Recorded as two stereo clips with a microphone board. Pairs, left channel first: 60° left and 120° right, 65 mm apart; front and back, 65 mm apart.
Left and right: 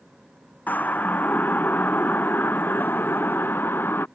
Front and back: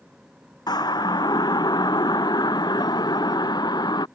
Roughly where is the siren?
Ahead.